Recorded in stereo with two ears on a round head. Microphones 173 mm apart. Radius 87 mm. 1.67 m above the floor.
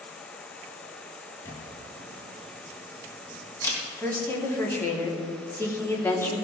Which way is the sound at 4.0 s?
15° left (ahead or behind).